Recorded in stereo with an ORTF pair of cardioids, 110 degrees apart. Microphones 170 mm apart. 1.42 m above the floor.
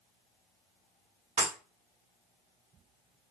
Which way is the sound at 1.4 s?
45° right.